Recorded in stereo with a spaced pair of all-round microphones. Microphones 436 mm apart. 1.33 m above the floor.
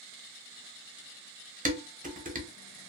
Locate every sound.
1.6 s dishes clattering: 20° right (ahead or behind), 0.6 m